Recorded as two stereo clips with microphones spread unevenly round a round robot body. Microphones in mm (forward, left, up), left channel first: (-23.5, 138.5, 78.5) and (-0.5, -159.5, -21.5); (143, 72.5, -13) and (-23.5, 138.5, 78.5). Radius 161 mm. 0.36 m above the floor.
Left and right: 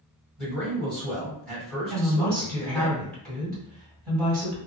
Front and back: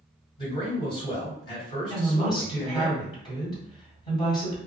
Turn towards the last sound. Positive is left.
turn(degrees=-10)